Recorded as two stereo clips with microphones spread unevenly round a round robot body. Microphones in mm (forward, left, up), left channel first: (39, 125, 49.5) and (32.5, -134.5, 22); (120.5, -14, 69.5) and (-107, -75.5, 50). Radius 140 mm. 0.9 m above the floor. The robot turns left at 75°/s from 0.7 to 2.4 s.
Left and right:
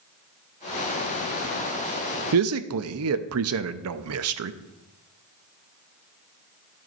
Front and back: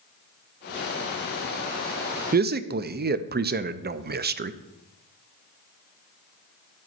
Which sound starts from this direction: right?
A man speaking, at 2.3 s.